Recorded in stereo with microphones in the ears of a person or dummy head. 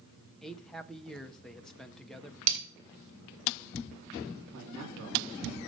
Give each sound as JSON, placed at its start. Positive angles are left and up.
{"t": 0.4, "sound": "a man speaking", "side_deg": 5, "distance_m": 0.5}
{"t": 2.5, "sound": "breaking glass", "side_deg": -40, "distance_m": 2.0}
{"t": 4.5, "sound": "a man speaking", "side_deg": -80, "distance_m": 2.0}